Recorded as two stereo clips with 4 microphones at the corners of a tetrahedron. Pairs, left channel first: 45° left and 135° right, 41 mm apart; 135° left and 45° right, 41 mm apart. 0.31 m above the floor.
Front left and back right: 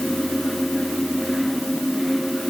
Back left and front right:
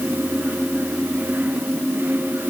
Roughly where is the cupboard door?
No cupboard door in this recording.